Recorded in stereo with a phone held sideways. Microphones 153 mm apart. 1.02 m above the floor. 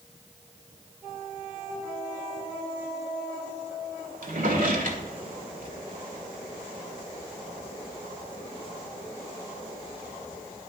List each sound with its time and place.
4.2 s a drawer: 65° right (ahead or behind), 1.7 m